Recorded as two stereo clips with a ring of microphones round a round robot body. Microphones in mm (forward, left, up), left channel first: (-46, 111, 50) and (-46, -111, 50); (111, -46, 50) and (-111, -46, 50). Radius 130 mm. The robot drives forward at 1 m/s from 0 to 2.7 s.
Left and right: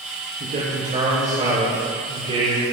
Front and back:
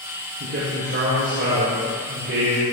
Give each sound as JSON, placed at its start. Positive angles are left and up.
{"t": 0.4, "sound": "a man speaking", "azimuth_deg": -140, "distance_m": 5.0}